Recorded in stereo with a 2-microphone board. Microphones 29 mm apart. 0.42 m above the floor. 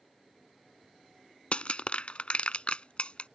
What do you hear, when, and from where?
1.5 s crushing: 45° left (ahead or behind)